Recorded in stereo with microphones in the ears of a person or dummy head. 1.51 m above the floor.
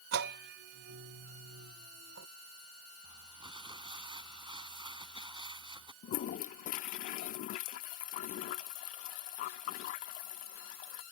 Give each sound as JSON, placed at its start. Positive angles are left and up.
{"t": 0.1, "sound": "a bell", "side_deg": -65}
{"t": 3.0, "sound": "crumpling", "side_deg": -25}
{"t": 6.0, "sound": "a toilet flushing", "side_deg": 45}